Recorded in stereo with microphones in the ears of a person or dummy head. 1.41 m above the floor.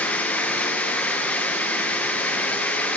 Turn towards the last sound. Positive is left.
turn(degrees=10)  # may be behind; listen again after turning